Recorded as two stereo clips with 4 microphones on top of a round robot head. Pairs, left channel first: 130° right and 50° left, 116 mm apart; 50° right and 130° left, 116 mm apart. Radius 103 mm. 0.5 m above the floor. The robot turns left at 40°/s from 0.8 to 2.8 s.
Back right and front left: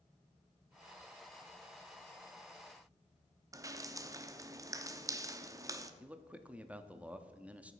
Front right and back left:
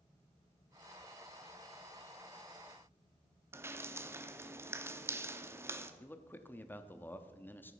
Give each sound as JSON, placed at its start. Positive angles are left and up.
{"t": 3.5, "sound": "dripping", "azimuth_deg": 80, "distance_m": 0.9}
{"t": 6.0, "sound": "a man speaking", "azimuth_deg": -10, "distance_m": 0.8}